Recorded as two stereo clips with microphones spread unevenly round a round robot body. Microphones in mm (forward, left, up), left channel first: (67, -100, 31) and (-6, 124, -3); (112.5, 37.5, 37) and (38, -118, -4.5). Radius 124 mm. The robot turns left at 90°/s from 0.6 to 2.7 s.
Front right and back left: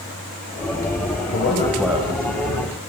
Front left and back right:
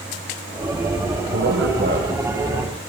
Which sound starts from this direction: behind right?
A man speaking, at 1.3 s.